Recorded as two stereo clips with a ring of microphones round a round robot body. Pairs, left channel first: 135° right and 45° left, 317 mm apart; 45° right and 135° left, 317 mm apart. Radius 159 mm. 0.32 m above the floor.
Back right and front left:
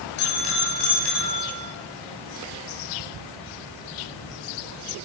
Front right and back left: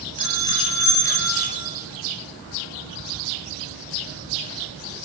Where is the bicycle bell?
120° right, 5 m; by 1.6 s 125° right, 6 m.